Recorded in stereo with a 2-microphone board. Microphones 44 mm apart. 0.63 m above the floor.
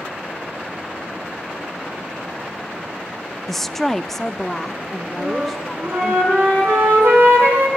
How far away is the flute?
About 8.5 m.